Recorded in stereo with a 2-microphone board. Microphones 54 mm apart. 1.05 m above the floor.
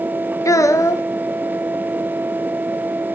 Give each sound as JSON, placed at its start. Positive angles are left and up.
{"t": 0.5, "sound": "a child speaking", "side_deg": 75, "distance_m": 0.6}